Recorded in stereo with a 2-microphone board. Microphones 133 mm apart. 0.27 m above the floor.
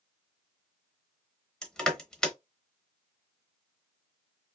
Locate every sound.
1.6 s crushing: 5° left (ahead or behind), 0.7 m